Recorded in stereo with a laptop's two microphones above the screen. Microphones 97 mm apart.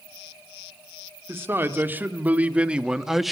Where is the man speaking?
25° right (ahead or behind), 2 m; by 3.3 s centre (ahead or behind), 1.2 m.